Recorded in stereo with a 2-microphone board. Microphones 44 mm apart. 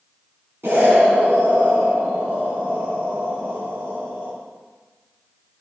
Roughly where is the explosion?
Right.